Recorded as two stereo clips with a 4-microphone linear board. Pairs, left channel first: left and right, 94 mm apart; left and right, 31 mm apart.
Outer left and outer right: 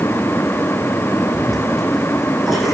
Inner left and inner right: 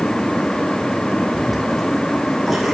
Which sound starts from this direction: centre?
A toilet flushing, at 1.3 s.